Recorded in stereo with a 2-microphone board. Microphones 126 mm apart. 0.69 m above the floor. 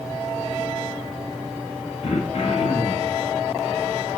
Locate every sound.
2.0 s throat clearing: 60° left (ahead or behind), 0.6 m